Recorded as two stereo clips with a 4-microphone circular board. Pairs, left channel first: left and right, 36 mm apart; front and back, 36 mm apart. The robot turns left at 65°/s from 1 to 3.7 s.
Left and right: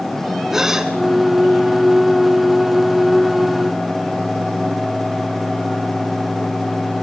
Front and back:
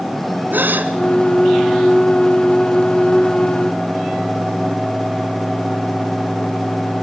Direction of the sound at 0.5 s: 165° right.